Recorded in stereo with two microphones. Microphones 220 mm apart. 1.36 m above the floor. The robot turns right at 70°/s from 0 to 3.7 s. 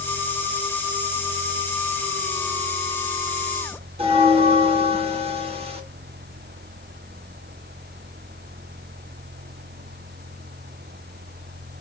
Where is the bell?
25° right (ahead or behind), 0.9 m.